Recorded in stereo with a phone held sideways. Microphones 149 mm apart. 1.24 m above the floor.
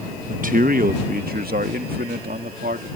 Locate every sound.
0.3 s a man speaking: 60° right (ahead or behind); by 2.9 s 85° right